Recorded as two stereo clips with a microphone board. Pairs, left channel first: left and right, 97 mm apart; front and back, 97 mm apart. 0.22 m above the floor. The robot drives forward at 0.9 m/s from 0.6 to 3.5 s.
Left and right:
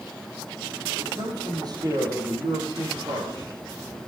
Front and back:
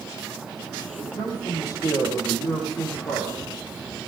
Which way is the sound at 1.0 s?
40° right.